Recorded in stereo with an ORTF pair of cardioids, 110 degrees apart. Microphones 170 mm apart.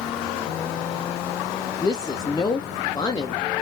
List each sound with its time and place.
1.8 s a woman speaking: 20° left, 0.5 m